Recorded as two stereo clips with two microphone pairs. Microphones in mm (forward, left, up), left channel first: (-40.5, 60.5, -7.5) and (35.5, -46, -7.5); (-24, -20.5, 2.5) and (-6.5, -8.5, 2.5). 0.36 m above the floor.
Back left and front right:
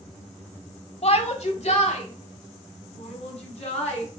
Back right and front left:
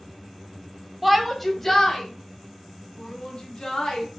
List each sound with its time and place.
1.0 s a shout: 115° left, 1.3 m; by 4.1 s 165° left, 3 m